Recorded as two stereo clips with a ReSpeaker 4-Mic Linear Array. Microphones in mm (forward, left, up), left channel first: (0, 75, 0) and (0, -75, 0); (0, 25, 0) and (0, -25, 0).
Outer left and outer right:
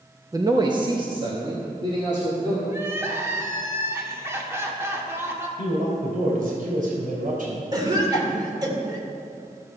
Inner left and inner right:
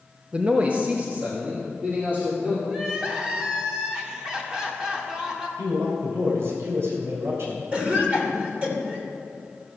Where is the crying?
15° right (ahead or behind), 1.5 m.